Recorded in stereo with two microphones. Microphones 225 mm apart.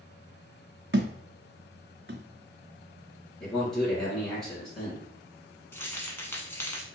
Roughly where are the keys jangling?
Centre.